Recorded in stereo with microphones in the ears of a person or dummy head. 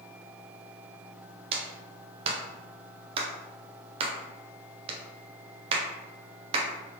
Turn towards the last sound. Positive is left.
turn(degrees=-30)  # may be behind; listen again after turning